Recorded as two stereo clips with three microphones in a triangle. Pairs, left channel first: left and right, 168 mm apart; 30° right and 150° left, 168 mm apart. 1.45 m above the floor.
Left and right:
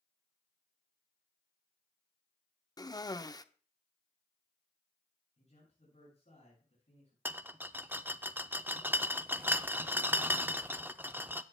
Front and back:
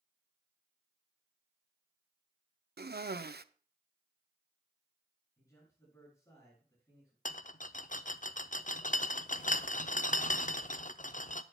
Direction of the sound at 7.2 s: 15° right.